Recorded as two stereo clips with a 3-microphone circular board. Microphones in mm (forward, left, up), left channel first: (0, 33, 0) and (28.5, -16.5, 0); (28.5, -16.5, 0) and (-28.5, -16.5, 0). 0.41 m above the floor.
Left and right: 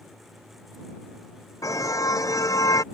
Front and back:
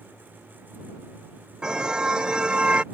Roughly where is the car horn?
Left.